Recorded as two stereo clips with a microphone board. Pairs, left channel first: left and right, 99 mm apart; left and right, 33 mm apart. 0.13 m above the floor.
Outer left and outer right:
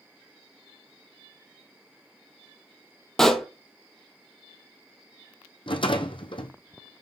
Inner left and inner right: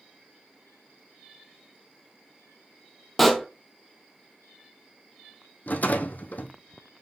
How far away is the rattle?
About 0.8 m.